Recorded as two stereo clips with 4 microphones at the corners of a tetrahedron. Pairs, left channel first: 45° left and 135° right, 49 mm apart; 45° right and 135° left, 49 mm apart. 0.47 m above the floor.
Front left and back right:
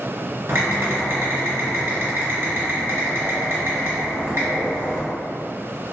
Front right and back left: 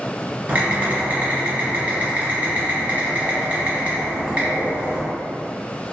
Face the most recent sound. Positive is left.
turn(degrees=-170)